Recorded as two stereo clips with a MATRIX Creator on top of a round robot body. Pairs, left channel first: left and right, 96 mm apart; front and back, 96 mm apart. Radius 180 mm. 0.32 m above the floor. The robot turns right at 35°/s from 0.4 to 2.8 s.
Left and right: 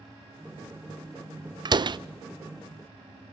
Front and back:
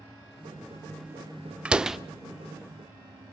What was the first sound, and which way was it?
A door slam, 105° right.